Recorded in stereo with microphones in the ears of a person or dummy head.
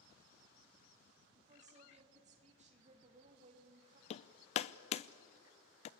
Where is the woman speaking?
40° right (ahead or behind), 3 m.